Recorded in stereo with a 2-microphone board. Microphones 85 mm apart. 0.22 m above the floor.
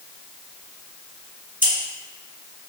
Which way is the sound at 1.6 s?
25° right (ahead or behind).